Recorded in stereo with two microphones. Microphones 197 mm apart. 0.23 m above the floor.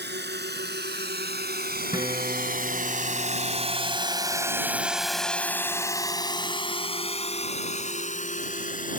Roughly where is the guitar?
Right.